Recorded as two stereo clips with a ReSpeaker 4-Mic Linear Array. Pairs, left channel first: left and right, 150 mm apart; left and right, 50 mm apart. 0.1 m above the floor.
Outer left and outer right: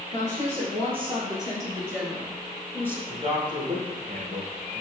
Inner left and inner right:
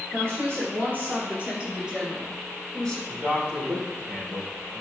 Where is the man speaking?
35° right (ahead or behind), 3.5 m.